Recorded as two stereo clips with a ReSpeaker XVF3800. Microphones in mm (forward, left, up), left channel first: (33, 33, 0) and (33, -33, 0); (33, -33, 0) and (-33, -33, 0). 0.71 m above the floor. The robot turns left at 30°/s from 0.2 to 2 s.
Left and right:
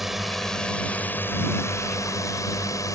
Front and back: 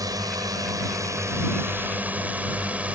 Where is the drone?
175° right; by 3.0 s 115° left.